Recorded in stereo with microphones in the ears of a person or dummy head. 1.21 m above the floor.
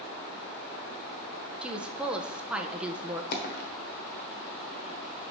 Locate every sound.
1.6 s a woman speaking: 10° right (ahead or behind), 0.6 m
3.3 s a dropped coin: 50° left (ahead or behind), 1.3 m